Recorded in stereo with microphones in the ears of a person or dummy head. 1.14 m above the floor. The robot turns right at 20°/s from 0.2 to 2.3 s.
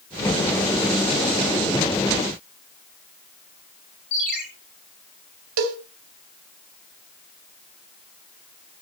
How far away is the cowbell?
About 2.5 m.